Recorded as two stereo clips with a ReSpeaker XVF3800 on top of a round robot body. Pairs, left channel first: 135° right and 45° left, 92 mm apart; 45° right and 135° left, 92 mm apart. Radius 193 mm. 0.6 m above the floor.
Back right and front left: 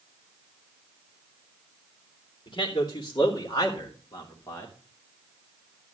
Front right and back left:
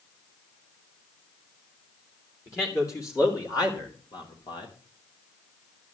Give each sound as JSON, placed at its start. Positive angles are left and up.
{"t": 2.5, "sound": "a man speaking", "azimuth_deg": -105, "distance_m": 2.5}